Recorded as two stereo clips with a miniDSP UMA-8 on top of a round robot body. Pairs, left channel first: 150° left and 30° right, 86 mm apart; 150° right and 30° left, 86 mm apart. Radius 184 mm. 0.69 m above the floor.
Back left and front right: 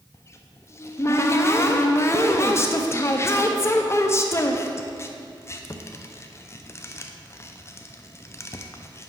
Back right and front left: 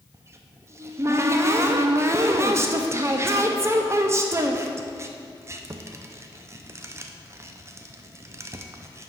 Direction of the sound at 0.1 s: 90° left.